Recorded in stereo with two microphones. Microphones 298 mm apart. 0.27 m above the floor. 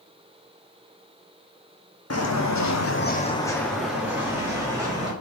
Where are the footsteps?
55° left (ahead or behind), 0.9 m; by 5.1 s 15° right (ahead or behind), 2.5 m.